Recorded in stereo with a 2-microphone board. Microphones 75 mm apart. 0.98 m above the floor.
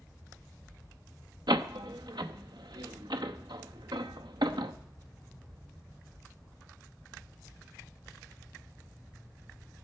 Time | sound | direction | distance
1.5 | a door slam | 75° right (ahead or behind) | 0.9 m